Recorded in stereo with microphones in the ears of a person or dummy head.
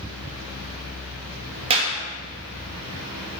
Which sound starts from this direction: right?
A clap, at 1.7 s.